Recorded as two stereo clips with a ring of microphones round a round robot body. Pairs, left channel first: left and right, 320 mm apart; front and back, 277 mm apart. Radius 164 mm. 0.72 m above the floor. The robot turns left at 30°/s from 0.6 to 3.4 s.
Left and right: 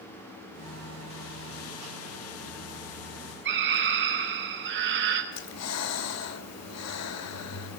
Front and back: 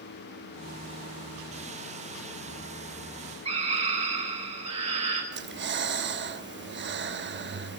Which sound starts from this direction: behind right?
A scream, at 3.5 s.